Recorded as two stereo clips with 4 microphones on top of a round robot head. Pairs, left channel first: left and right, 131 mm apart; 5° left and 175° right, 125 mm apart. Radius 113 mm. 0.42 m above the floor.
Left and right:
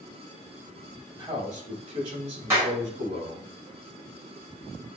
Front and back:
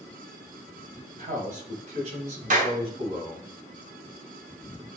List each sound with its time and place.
1.2 s a man speaking: 155° right, 2.5 m; by 3.5 s 120° right, 3.5 m
2.5 s a clap: 165° right, 2 m